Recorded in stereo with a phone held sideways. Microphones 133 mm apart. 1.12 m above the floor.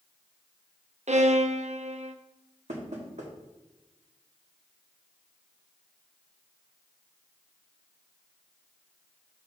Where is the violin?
65° right (ahead or behind), 0.6 m.